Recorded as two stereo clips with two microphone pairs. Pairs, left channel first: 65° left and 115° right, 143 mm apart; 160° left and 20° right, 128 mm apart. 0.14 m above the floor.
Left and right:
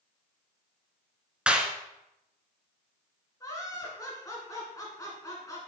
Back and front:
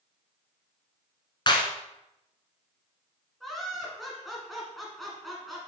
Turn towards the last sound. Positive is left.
turn(degrees=70)